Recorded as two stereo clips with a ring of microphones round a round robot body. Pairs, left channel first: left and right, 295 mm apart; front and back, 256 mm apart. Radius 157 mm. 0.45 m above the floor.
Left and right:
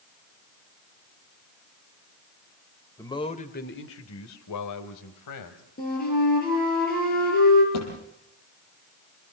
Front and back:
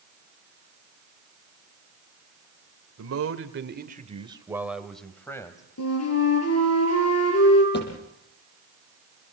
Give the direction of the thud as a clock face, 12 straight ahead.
10 o'clock.